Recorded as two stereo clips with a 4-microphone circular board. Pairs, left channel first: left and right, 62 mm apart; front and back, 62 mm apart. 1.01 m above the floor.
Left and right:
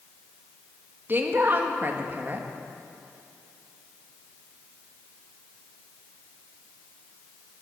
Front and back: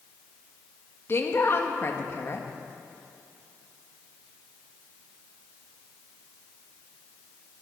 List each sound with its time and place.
1.1 s a woman speaking: 40° right, 1.6 m